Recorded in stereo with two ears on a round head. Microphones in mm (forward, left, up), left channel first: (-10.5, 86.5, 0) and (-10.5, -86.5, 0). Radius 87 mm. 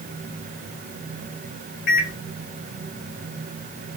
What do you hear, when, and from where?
1.9 s a microwave: 50° left (ahead or behind), 1.7 m